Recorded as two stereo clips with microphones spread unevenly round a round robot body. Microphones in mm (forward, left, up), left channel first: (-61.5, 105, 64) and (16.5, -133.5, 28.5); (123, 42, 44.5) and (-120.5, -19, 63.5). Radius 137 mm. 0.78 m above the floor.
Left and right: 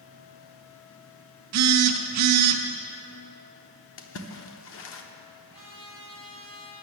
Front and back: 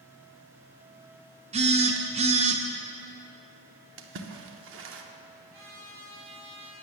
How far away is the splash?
About 0.8 m.